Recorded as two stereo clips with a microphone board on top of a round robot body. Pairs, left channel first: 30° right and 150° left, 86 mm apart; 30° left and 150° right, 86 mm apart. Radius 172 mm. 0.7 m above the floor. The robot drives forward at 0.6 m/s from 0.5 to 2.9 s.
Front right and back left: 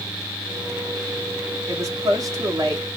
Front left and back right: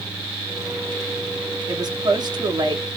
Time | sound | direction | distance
1.7 | a woman speaking | 165° right | 1.3 m